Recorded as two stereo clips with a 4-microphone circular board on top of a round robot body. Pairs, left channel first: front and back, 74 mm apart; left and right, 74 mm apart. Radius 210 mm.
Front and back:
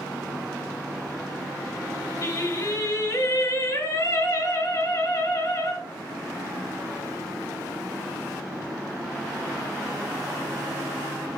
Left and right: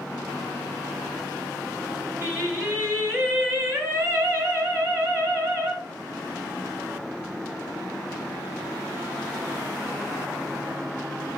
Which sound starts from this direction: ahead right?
Singing, at 2.2 s.